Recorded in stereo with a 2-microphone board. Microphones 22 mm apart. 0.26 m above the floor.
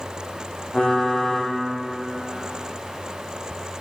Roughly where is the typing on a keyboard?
Left.